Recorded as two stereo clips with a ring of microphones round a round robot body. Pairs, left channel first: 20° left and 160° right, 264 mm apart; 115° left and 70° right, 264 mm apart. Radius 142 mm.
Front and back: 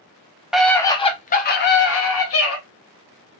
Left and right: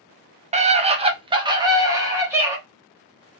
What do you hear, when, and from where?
0.5 s a scream: 70° right, 0.7 m; by 2.6 s 15° left, 1.2 m